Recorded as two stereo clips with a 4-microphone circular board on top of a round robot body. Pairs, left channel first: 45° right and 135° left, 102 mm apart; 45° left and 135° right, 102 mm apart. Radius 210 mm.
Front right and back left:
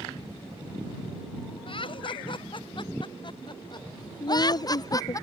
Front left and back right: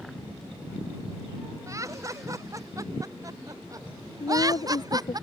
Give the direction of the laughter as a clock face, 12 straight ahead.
3 o'clock.